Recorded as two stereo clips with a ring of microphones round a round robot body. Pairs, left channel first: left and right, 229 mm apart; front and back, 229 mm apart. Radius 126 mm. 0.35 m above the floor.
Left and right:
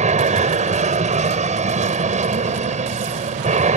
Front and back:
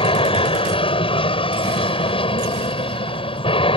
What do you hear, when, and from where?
0.0 s an aircraft: 50° right